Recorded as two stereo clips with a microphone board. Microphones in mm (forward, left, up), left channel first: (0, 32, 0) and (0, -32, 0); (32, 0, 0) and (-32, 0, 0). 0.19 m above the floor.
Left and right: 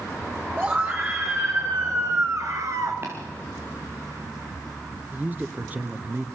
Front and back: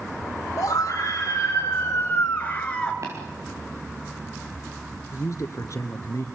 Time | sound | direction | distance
0.6 | a scream | 30° right | 4.5 m
3.0 | tapping | 145° right | 7.5 m
5.1 | a man speaking | 30° right | 2.5 m